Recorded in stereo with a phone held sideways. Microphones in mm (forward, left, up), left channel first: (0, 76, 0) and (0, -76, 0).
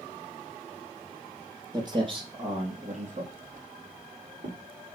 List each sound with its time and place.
1.7 s footsteps: 30° right (ahead or behind), 1.7 m; by 4.6 s 70° right (ahead or behind), 3 m